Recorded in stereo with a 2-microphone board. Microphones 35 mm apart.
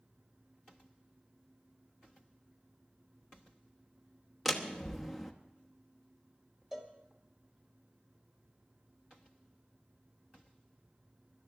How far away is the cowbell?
About 1.7 m.